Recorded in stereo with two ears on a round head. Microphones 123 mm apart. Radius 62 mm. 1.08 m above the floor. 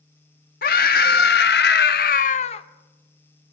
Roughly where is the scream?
Left.